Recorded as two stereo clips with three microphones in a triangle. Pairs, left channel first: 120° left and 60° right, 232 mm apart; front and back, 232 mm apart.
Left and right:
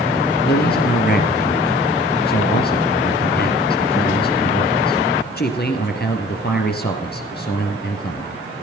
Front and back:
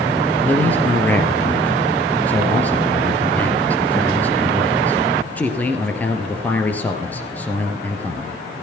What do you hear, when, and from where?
0.5 s a man speaking: 80° left, 2.5 m